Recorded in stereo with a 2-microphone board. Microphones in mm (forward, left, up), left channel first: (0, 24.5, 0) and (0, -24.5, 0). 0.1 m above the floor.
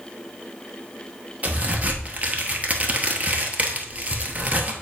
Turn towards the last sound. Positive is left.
turn(degrees=-30)  # may be behind; listen again after turning